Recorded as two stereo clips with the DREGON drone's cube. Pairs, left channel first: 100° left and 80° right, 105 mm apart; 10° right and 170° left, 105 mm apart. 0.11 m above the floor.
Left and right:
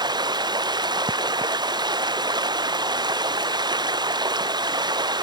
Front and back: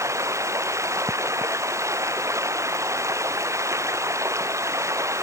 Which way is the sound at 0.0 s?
125° right.